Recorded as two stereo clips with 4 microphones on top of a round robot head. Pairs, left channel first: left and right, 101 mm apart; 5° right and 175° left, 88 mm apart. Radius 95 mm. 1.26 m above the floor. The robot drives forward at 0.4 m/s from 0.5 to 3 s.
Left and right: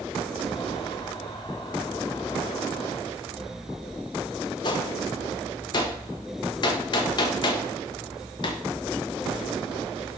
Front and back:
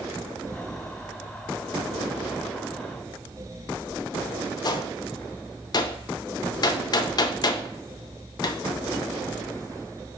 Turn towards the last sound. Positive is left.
turn(degrees=40)